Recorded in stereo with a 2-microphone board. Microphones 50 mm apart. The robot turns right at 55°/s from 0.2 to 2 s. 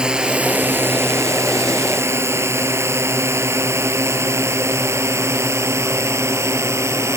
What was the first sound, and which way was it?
A drone, 20° right (ahead or behind).